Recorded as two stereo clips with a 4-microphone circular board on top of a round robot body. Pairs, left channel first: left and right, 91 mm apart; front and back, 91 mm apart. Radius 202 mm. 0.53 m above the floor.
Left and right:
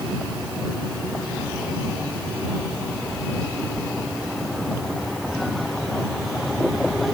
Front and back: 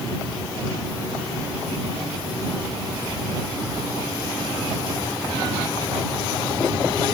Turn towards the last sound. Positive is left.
No sound to turn to.